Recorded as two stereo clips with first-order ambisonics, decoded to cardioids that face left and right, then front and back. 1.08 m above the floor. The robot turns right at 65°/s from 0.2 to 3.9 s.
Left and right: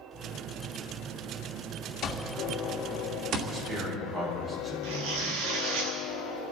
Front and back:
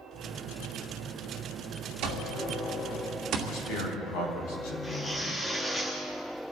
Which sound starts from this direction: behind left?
An alarm clock, at 2.0 s.